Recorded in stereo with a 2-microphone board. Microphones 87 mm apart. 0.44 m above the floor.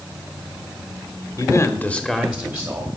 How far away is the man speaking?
About 1.1 m.